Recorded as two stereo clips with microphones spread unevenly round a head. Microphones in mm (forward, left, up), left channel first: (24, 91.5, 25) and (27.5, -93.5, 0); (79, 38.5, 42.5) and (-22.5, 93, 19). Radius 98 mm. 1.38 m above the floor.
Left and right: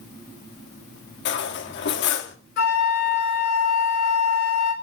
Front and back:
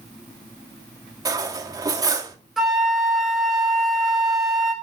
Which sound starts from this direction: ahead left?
A flute, at 2.6 s.